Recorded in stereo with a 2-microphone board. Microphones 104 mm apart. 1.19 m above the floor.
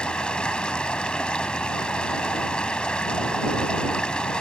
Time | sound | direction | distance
0.0 | running water | 10° left (ahead or behind) | ?